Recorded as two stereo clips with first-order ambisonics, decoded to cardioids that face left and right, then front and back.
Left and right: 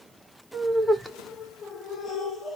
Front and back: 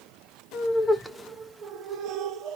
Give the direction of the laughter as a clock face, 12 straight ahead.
1 o'clock.